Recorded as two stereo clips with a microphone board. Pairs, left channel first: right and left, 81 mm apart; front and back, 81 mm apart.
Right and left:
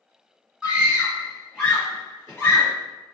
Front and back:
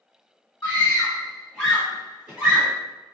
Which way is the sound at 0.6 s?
40° left.